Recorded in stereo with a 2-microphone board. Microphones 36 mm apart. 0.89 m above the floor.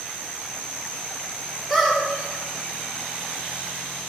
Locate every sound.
1.7 s a squeak: 5° right (ahead or behind), 1.2 m